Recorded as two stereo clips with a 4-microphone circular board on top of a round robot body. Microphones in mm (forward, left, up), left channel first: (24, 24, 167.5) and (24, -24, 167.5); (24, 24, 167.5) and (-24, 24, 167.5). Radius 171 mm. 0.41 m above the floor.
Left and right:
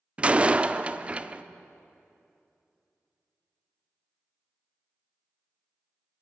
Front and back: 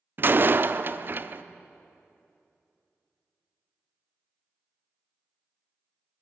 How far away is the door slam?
About 0.9 m.